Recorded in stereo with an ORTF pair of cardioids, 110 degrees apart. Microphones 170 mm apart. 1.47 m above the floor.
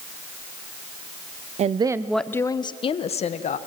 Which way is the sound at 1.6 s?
45° right.